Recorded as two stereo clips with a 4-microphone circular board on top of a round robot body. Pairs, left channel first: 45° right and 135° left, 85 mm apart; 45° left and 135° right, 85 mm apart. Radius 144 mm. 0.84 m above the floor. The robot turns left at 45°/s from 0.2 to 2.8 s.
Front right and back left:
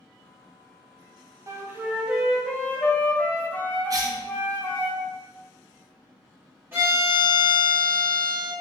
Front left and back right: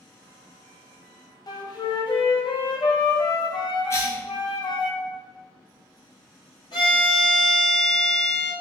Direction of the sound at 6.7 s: 70° left.